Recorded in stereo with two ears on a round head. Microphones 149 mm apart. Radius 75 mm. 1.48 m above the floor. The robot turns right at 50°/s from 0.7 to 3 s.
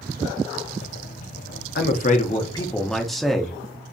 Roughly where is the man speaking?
Behind left.